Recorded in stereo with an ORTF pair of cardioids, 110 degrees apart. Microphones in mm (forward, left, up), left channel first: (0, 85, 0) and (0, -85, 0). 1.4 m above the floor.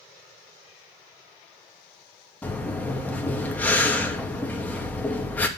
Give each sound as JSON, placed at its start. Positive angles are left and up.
{"t": 2.4, "sound": "breathing", "azimuth_deg": 10, "distance_m": 2.5}